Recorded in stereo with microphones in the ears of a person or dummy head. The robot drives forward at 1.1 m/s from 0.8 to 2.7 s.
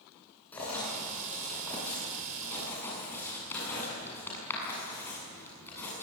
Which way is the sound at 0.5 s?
10° left (ahead or behind).